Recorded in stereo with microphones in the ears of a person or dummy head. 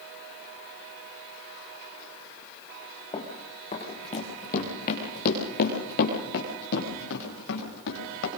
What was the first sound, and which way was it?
Running footsteps, 20° left (ahead or behind).